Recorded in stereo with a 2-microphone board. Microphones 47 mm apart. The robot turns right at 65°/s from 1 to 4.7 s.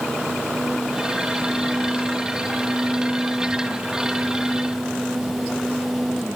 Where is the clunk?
I don't hear a clunk.